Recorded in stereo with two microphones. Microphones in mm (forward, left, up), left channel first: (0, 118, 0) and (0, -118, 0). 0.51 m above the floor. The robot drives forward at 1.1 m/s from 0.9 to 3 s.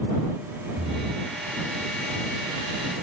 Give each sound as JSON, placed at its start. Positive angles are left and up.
{"t": 0.8, "sound": "breathing", "side_deg": -55}